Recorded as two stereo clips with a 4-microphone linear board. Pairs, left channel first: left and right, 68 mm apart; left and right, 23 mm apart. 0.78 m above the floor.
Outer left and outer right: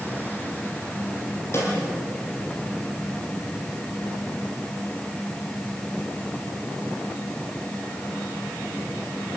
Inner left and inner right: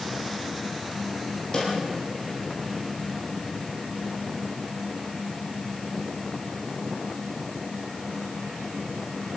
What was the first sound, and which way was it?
A snare drum, 40° left (ahead or behind).